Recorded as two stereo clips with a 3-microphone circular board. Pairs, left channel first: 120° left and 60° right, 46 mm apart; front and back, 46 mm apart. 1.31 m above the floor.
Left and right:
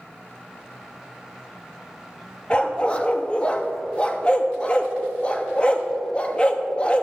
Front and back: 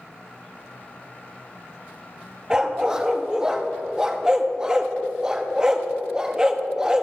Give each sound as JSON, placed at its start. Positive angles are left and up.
{"t": 2.5, "sound": "a dog barking", "azimuth_deg": 135, "distance_m": 0.7}